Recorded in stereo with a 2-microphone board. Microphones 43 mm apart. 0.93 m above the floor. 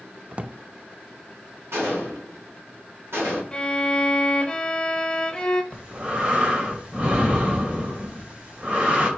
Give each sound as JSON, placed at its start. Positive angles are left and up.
{"t": 0.3, "sound": "a drawer", "side_deg": -30, "distance_m": 0.5}
{"t": 1.7, "sound": "a gunshot", "side_deg": -75, "distance_m": 4.0}
{"t": 3.5, "sound": "a violin", "side_deg": 20, "distance_m": 0.9}
{"t": 5.7, "sound": "breathing", "side_deg": -35, "distance_m": 2.5}